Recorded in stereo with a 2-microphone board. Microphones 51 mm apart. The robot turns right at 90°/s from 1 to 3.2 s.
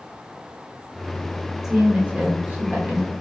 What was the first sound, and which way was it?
A woman speaking, 165° right.